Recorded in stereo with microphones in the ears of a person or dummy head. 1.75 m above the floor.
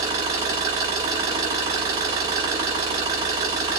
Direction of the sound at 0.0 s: 20° right (ahead or behind).